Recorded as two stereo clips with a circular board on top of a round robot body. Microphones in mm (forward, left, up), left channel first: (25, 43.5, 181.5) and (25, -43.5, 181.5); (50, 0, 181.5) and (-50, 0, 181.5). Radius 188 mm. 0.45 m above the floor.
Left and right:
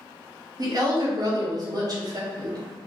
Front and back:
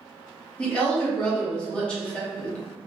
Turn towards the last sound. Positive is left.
turn(degrees=-75)